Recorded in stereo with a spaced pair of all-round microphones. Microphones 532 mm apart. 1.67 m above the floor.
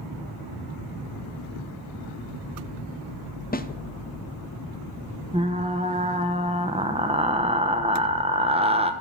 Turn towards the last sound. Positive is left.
turn(degrees=-10)  # may be behind; listen again after turning